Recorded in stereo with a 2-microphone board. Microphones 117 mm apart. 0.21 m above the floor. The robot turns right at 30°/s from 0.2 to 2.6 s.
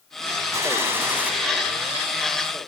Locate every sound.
0.5 s a gunshot: 25° right (ahead or behind), 1.4 m; by 1.3 s 15° right (ahead or behind), 1.4 m